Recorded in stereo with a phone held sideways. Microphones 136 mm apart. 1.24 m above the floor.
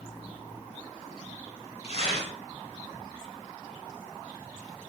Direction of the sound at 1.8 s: 50° left (ahead or behind).